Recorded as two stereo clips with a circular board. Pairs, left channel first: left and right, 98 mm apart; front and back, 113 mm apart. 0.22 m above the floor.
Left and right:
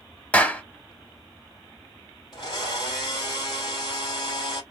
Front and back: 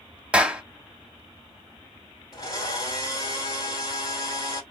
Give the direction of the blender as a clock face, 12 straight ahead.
10 o'clock.